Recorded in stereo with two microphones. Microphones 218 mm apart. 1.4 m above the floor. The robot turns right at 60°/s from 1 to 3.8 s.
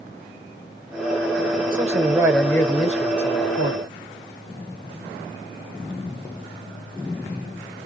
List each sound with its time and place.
1.7 s a man speaking: 40° right, 1.0 m; by 3.8 s 85° left, 1.0 m